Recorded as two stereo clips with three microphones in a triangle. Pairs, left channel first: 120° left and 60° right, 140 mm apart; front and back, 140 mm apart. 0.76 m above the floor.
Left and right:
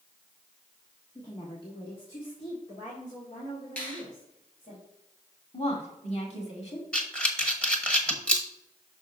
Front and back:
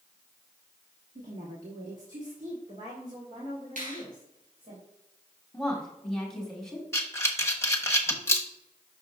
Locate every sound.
1.1 s a woman speaking: straight behind, 1.3 m; by 4.8 s 140° left, 3 m
3.8 s a finger snap: 165° right, 3.5 m
5.5 s a woman speaking: 85° left, 2 m
6.9 s breathing: 45° left, 1.1 m